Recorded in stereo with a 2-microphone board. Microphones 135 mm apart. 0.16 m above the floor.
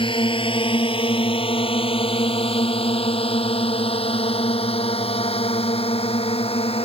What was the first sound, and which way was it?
A drone, 40° left (ahead or behind).